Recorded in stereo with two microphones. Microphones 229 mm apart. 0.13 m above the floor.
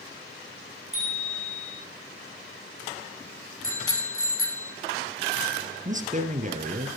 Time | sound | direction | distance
0.9 | a bicycle bell | 65° right (ahead or behind) | 8.5 m
3.6 | a bicycle bell | 65° left (ahead or behind) | 4.5 m
5.8 | a man speaking | 35° right (ahead or behind) | 3 m